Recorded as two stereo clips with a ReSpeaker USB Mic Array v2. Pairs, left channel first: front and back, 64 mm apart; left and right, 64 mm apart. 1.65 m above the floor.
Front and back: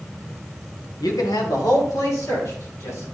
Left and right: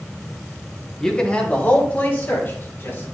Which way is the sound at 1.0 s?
10° left.